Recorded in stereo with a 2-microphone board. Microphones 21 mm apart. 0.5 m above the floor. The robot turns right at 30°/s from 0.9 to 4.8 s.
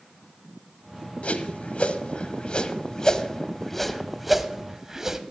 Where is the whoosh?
85° left, 0.8 m; by 5.2 s 20° right (ahead or behind), 0.8 m.